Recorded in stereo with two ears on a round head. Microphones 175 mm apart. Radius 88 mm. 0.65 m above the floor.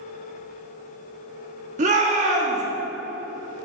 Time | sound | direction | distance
1.8 | a shout | 40° right (ahead or behind) | 1.5 m